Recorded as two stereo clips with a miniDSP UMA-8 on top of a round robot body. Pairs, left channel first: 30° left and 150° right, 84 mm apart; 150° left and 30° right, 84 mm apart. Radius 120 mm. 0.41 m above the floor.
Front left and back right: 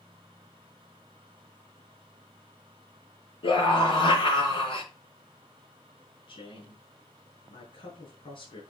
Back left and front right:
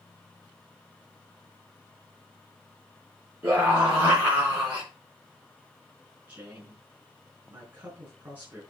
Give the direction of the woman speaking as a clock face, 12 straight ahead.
11 o'clock.